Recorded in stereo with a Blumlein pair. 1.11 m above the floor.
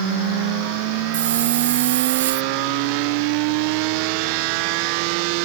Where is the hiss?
60° right.